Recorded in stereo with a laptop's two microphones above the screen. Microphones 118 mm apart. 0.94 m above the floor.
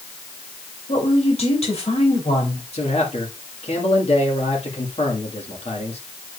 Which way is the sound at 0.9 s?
60° left (ahead or behind).